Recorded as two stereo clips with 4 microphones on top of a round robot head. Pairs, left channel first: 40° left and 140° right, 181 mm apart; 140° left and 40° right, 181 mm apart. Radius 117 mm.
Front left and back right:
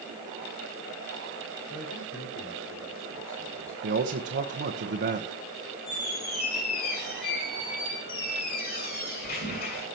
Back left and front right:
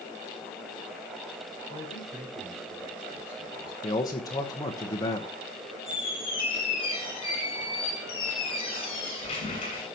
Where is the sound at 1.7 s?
20° left, 5 m; by 3.7 s 45° left, 6.5 m.